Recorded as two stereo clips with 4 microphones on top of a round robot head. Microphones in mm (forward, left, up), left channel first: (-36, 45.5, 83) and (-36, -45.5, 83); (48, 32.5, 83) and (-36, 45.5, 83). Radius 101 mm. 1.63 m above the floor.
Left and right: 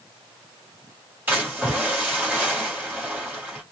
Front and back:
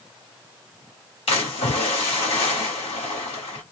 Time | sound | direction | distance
1.3 | a splash | 15° right | 1.7 m